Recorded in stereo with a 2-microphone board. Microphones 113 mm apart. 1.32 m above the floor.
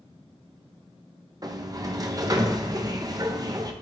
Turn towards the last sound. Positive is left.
turn(degrees=-35)  # may be behind; listen again after turning